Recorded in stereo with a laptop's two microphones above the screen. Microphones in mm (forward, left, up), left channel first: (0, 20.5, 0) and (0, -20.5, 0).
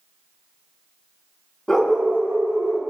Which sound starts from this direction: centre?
A dog barking, at 1.7 s.